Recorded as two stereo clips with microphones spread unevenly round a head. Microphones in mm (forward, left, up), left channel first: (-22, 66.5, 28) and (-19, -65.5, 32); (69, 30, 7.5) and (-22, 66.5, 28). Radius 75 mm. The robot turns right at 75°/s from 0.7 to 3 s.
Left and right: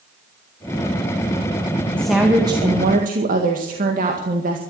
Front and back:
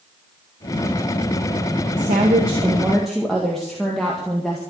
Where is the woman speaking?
170° left, 1.9 m; by 4.6 s 110° right, 1.9 m.